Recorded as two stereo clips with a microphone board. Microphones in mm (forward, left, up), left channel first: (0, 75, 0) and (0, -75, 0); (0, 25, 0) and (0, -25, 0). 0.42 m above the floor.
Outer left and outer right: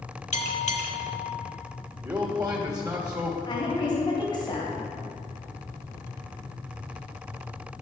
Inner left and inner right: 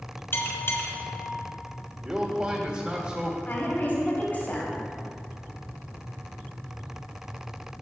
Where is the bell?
50° left (ahead or behind), 1.3 m.